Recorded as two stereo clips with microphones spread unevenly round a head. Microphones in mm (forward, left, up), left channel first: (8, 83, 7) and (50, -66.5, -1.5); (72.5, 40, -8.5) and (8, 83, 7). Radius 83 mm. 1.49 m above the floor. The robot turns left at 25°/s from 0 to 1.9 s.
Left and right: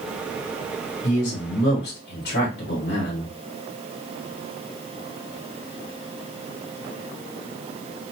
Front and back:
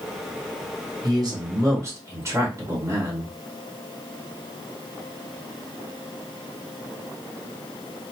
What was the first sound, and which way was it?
A man speaking, 115° left.